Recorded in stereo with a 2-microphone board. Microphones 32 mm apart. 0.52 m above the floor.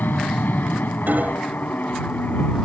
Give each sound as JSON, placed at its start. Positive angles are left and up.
{"t": 0.0, "sound": "an aircraft", "side_deg": 70}
{"t": 1.1, "sound": "hammering", "side_deg": -65}